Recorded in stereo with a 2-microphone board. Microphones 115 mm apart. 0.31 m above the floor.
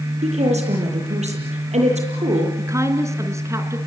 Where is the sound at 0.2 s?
80° right, 8.5 m.